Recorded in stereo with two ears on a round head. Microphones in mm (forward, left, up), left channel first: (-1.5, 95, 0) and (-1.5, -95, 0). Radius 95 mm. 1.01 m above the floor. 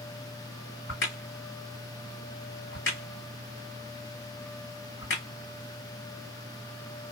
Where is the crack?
55° left (ahead or behind), 1.5 m.